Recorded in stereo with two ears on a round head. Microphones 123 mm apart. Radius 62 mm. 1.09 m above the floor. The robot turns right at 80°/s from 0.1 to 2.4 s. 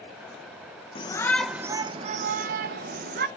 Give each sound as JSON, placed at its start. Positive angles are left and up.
{"t": 0.9, "sound": "a shout", "azimuth_deg": 140, "distance_m": 0.6}